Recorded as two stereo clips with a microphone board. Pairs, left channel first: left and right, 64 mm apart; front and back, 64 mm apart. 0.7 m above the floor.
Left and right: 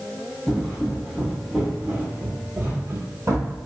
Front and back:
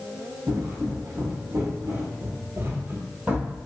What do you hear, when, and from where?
0.5 s footsteps: 170° left, 1.5 m; by 3.6 s 110° right, 1.3 m